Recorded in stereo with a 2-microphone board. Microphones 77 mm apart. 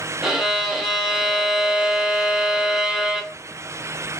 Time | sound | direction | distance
0.2 | a violin | 10° right (ahead or behind) | 0.8 m